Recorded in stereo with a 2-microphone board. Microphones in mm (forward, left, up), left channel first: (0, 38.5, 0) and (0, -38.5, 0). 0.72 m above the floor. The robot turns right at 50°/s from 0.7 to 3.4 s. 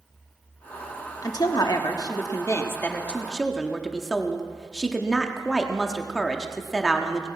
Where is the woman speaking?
65° left, 1.0 m; by 7.3 s 175° left, 1.0 m.